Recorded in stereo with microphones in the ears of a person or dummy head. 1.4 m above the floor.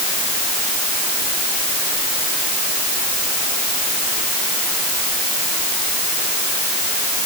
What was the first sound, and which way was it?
Only background noise.